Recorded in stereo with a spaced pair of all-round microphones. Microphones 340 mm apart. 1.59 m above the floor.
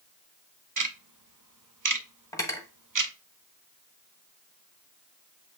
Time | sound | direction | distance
0.8 | ticking | 65° right (ahead or behind) | 0.6 m
2.3 | cutlery clinking | 10° left (ahead or behind) | 0.9 m